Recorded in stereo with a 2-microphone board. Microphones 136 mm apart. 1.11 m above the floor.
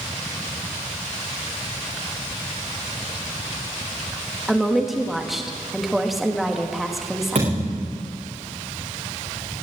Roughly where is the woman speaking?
Centre.